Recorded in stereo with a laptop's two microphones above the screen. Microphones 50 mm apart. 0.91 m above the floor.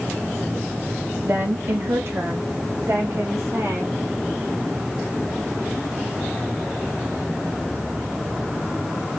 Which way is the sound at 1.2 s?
50° right (ahead or behind).